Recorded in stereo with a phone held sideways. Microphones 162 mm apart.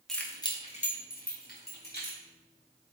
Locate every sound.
0.1 s keys jangling: centre (ahead or behind), 0.5 m; by 2.2 s 80° left, 1.2 m